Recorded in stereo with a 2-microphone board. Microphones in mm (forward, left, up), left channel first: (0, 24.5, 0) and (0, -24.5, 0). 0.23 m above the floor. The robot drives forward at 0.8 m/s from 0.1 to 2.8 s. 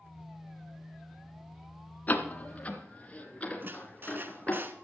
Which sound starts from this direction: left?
A door slam, at 2.1 s.